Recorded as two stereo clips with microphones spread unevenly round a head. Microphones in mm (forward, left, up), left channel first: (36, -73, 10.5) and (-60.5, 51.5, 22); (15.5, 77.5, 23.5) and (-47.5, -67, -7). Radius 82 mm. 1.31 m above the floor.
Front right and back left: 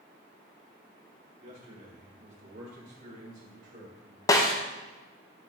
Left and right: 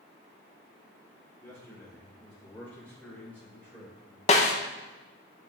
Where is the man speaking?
145° left, 3.5 m.